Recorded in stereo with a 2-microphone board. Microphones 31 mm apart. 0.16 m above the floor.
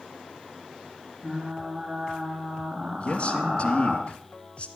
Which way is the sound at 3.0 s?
35° left (ahead or behind).